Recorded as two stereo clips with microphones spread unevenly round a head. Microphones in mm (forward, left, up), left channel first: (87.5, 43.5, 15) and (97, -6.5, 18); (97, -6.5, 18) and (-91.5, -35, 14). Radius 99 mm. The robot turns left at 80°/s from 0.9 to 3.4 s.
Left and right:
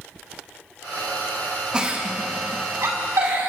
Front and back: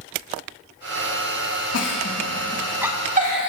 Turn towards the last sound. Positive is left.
turn(degrees=-140)